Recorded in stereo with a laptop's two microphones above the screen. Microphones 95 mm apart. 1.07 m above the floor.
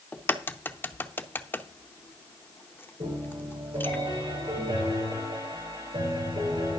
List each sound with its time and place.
0.1 s a crack: 20° left (ahead or behind), 0.7 m
3.0 s a piano: 80° right, 9 m